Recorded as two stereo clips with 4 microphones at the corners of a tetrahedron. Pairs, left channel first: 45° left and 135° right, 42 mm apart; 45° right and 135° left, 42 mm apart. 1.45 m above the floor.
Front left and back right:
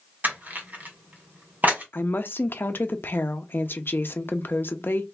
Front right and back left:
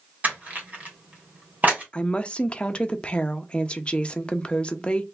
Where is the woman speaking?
20° left, 0.6 m.